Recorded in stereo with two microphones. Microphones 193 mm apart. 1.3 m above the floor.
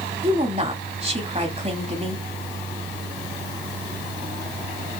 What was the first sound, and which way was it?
A woman speaking, 35° right (ahead or behind).